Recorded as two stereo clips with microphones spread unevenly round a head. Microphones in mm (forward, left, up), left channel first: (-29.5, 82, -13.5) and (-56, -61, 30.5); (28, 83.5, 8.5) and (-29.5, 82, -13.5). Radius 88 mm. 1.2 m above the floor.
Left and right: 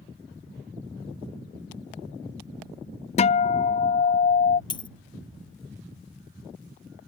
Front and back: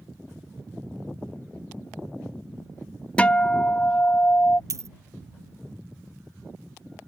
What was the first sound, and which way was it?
A guitar, 80° left.